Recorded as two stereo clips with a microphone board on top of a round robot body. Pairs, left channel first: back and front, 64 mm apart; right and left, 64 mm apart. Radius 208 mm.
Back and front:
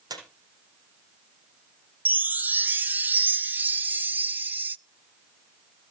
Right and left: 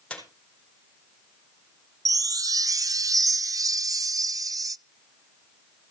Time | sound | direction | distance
0.1 | a squeak | 15° right | 4 m
2.0 | a chime | 60° left | 0.6 m